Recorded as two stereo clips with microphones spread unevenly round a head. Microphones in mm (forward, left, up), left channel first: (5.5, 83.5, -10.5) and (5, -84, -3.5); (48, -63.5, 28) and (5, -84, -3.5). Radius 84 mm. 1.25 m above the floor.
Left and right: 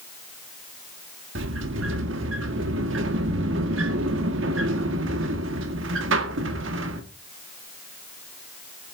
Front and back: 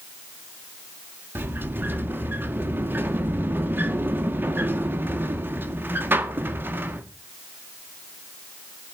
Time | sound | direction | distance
1.4 | a sliding door | 100° right | 1.8 m